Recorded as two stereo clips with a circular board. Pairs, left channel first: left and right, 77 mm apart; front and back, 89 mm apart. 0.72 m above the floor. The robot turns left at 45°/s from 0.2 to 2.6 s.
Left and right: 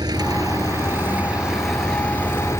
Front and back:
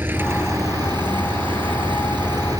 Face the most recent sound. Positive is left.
turn(degrees=140)